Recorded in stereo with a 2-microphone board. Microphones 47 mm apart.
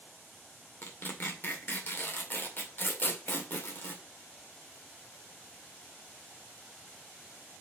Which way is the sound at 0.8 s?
45° left (ahead or behind).